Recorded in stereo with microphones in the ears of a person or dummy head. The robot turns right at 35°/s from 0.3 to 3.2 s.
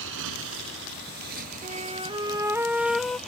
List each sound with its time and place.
0.0 s a motorcycle: 65° right (ahead or behind); by 3.3 s 5° left (ahead or behind)
1.6 s a flute: 40° right; by 3.2 s 15° left